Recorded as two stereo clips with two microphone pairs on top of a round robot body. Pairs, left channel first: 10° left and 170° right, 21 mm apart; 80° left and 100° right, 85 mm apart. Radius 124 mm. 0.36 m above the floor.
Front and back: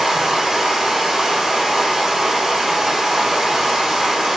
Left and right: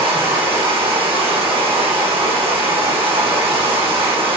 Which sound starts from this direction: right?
Running water, at 0.0 s.